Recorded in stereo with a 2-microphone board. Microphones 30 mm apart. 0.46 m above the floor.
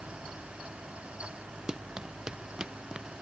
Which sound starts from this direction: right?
Running footsteps, at 1.7 s.